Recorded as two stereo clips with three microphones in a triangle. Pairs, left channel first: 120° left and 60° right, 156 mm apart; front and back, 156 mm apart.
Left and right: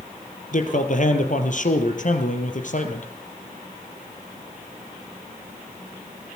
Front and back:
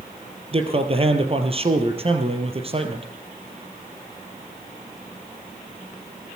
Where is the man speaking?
135° left, 3 m.